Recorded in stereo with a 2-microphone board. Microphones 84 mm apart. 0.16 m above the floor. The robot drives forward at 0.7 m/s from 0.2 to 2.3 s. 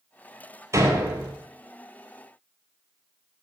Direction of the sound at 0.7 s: 35° right (ahead or behind).